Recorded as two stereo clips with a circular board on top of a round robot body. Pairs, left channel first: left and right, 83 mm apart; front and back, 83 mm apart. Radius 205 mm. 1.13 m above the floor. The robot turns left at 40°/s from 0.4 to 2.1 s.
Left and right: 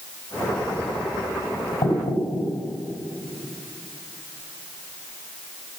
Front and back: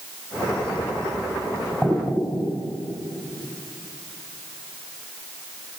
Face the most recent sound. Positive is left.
turn(degrees=65)